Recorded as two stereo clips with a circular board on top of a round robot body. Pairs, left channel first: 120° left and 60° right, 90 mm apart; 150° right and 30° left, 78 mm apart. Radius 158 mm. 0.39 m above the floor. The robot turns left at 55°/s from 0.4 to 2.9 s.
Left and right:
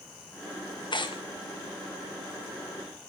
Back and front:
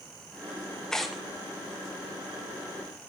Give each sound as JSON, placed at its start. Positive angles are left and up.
{"t": 0.9, "sound": "tearing paper", "azimuth_deg": 130, "distance_m": 2.5}